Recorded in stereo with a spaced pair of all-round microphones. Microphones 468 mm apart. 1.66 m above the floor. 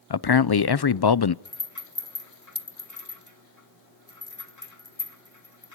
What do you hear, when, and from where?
0.1 s a man speaking: 50° left (ahead or behind), 0.6 m
1.4 s a rattle: 35° left (ahead or behind), 2 m